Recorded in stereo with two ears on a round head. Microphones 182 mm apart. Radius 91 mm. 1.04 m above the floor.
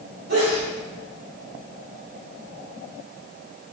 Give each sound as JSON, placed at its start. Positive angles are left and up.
{"t": 0.3, "sound": "a sneeze", "side_deg": -40, "distance_m": 3.0}